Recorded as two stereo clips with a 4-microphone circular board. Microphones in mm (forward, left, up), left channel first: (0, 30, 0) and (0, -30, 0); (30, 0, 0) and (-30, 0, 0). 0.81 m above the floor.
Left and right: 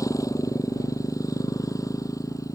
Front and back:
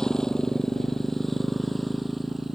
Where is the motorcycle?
80° left; by 2.5 s 95° left.